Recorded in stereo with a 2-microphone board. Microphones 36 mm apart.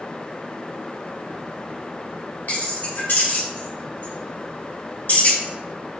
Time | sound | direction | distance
2.5 | keys jangling | 55° left (ahead or behind) | 1.3 m